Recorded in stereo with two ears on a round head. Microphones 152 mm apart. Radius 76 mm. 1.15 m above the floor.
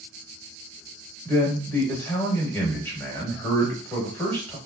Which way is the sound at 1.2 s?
10° left (ahead or behind).